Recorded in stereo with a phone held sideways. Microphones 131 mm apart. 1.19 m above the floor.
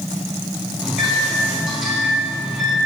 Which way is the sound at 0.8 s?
5° right (ahead or behind).